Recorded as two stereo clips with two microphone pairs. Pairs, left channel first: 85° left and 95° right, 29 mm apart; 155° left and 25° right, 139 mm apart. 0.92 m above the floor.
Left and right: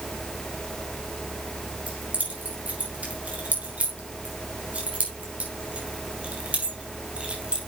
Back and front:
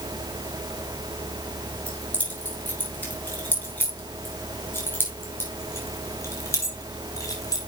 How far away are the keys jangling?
About 6.5 m.